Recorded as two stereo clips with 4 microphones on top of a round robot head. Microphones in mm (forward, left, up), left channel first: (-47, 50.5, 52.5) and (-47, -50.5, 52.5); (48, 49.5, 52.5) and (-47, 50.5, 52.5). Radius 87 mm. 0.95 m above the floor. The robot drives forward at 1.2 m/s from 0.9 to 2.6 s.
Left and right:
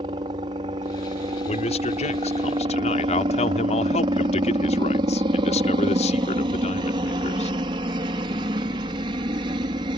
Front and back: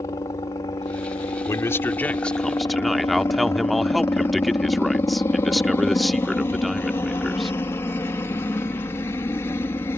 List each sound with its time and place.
0.0 s a helicopter: 55° right; by 10.0 s 60° right
1.5 s a man speaking: 60° left; by 7.6 s 90° left